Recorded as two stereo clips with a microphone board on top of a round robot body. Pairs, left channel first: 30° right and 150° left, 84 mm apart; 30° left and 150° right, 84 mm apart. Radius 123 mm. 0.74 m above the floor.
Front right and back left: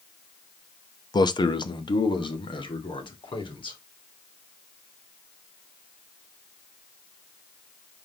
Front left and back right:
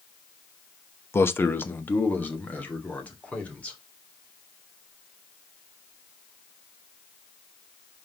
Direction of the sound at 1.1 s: 25° right.